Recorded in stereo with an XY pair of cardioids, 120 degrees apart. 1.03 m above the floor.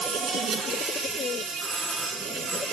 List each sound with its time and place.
0.0 s an insect: 65° right, 5.5 m
1.6 s a doorbell: 30° right, 3.5 m